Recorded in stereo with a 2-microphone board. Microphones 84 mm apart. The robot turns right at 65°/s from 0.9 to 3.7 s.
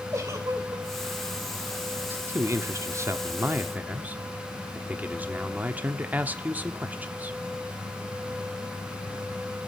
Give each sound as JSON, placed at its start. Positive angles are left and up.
{"t": 0.1, "sound": "a giggle", "side_deg": -40, "distance_m": 2.5}
{"t": 2.1, "sound": "a man speaking", "azimuth_deg": -140, "distance_m": 1.0}